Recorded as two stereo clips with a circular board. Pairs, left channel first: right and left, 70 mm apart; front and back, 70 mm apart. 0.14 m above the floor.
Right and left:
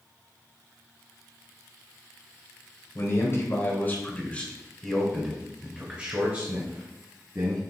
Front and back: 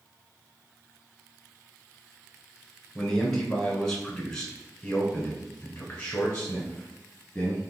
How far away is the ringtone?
I don't hear a ringtone.